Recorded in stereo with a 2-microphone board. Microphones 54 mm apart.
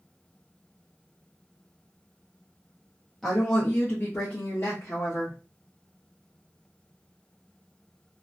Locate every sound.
3.2 s a woman speaking: centre (ahead or behind), 0.7 m; by 5.4 s 60° left (ahead or behind), 1.3 m